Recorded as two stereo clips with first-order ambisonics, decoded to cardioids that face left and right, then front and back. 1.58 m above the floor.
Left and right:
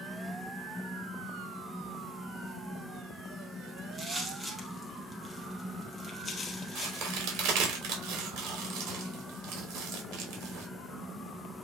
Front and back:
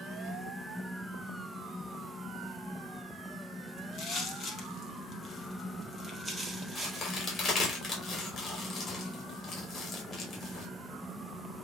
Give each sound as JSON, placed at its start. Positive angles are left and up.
{"t": 3.8, "sound": "footsteps", "azimuth_deg": -15, "distance_m": 2.0}
{"t": 6.8, "sound": "a crack", "azimuth_deg": -60, "distance_m": 3.5}